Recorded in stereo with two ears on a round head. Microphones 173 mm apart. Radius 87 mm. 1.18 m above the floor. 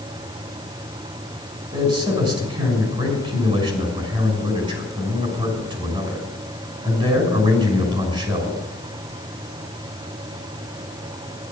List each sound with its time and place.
1.7 s a man speaking: 30° right (ahead or behind), 6.5 m